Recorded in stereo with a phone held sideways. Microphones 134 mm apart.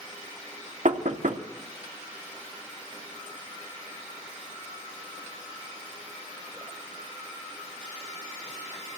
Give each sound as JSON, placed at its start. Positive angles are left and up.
{"t": 0.8, "sound": "knocking", "side_deg": -65, "distance_m": 2.0}